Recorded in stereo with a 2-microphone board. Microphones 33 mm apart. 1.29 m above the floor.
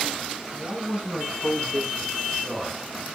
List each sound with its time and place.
0.5 s a man speaking: 50° right (ahead or behind), 7 m; by 2.8 s 25° right (ahead or behind), 4.5 m